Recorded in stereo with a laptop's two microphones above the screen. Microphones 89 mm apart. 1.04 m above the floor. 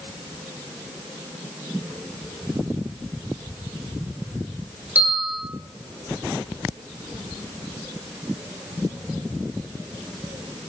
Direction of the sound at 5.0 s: 15° right (ahead or behind).